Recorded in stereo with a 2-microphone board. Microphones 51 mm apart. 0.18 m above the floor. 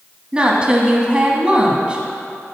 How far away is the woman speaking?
About 1.0 m.